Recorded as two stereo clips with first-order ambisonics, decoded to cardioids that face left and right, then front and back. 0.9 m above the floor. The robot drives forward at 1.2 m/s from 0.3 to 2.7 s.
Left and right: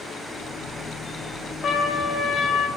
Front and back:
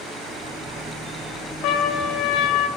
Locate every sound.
1.6 s a trumpet: 30° left, 3 m; by 2.7 s 50° left, 1.8 m